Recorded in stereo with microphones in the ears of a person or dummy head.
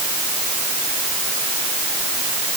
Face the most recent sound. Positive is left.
No sound to turn to.